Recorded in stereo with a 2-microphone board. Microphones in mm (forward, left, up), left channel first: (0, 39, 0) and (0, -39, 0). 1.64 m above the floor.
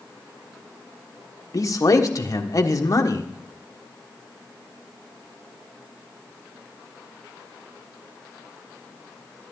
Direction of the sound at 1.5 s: 45° left (ahead or behind).